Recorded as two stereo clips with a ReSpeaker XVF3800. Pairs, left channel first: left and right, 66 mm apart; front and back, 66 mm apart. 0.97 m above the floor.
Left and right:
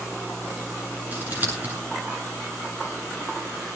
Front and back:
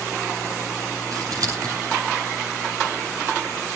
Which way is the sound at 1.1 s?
155° right.